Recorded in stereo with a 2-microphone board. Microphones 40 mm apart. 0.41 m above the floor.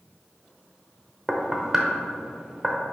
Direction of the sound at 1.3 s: 15° right (ahead or behind).